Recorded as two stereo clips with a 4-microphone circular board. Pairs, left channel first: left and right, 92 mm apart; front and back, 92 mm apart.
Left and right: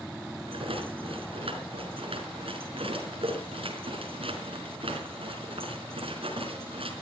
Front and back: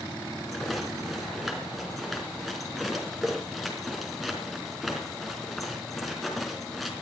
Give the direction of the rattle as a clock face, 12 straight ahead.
3 o'clock.